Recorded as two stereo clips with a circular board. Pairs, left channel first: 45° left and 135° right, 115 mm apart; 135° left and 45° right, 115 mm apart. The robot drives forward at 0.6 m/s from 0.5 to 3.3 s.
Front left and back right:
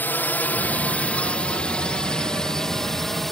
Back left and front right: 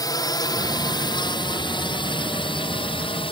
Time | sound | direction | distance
0.0 | a drone | 110° left | ?